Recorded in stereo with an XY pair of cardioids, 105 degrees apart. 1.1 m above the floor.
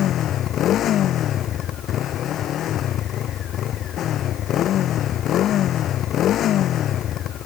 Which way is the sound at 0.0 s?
70° left.